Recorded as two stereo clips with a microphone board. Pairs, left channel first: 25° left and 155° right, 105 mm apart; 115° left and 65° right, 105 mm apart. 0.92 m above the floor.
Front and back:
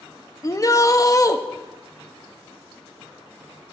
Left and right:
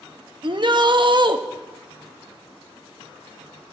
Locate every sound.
0.4 s a shout: 30° right, 1.1 m